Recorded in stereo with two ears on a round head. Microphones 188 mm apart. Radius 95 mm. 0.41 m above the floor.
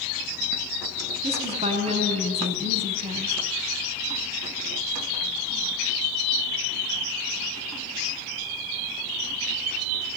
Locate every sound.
1.2 s a woman speaking: 30° right (ahead or behind), 4 m